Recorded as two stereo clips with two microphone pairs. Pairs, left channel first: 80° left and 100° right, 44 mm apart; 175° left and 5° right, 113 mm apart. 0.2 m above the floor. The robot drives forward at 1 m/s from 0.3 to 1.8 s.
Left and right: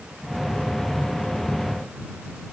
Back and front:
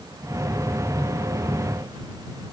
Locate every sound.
Only background noise.